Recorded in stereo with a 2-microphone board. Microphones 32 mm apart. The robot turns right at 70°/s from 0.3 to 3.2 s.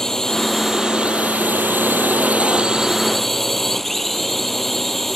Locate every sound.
0.0 s a drone: 160° left; by 5.2 s 5° left